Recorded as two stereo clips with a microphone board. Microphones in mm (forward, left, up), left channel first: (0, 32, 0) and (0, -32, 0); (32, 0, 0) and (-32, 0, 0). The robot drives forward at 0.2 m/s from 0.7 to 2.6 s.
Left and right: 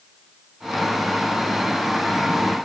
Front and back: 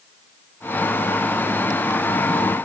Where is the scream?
I don't hear a scream.